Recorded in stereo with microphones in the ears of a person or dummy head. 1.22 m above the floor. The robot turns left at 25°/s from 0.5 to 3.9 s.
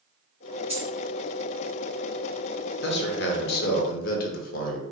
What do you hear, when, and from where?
0.7 s a dropped coin: 10° right (ahead or behind), 1.1 m; by 0.9 s 5° right (ahead or behind), 1.1 m
2.8 s a man speaking: 55° left (ahead or behind), 0.6 m; by 4.8 s 50° left (ahead or behind), 0.6 m